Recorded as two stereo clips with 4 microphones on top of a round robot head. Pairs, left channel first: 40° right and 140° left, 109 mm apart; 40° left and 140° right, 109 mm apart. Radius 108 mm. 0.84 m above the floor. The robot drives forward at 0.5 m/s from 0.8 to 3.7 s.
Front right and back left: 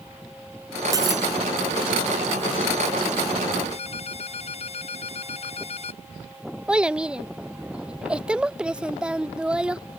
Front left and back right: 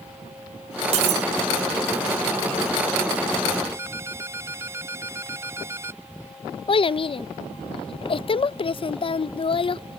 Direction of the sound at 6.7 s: 60° left.